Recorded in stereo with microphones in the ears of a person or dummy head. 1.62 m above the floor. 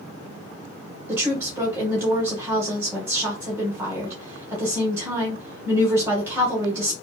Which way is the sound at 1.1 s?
20° right (ahead or behind).